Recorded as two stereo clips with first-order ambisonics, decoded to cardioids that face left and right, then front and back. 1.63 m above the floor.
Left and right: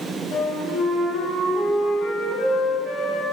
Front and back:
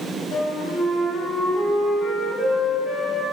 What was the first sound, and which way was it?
A flute, 50° left.